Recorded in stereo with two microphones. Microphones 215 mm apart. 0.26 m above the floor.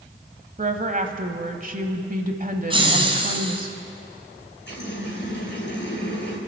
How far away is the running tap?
About 3.5 m.